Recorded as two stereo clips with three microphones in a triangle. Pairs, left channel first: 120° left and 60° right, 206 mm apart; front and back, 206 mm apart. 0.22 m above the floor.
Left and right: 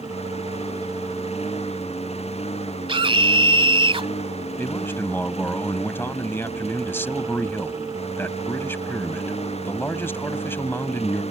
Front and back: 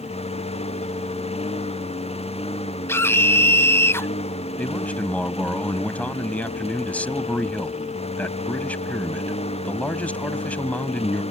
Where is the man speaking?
65° left.